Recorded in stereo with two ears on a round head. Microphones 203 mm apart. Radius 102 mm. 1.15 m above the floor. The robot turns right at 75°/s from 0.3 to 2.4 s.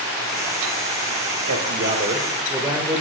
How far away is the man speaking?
About 1.8 m.